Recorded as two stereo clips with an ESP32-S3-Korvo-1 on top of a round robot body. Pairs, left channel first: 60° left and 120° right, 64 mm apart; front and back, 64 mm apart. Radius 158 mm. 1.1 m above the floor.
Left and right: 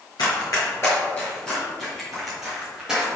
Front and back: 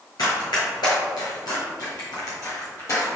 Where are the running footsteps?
30° left, 1.4 m; by 3.1 s 40° right, 2.5 m.